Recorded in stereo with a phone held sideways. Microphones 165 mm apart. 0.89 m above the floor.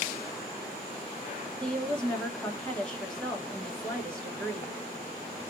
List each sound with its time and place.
1.6 s a woman speaking: 5° left (ahead or behind), 1.1 m